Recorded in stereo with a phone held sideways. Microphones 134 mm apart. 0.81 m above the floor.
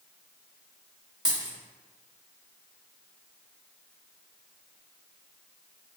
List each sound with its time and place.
1.2 s a dropped coin: 35° right (ahead or behind), 1.2 m